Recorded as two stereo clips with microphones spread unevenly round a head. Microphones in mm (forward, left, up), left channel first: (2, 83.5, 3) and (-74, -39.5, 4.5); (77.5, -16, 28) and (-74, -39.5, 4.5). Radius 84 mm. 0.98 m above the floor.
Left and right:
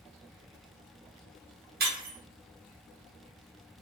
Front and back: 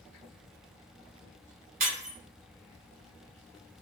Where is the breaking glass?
135° right, 1.2 m.